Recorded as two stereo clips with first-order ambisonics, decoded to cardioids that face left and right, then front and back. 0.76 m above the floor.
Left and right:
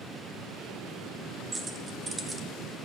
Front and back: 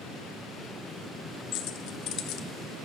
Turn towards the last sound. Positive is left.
turn(degrees=-20)